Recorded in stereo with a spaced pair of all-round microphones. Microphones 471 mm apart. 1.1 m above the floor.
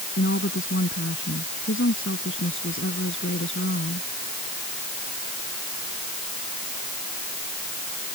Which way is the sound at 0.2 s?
25° left (ahead or behind).